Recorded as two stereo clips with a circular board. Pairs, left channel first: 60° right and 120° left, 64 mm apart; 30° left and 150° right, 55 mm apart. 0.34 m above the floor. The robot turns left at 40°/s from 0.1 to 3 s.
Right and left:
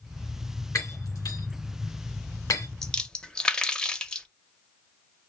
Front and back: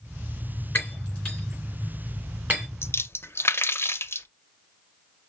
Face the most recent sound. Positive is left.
turn(degrees=15)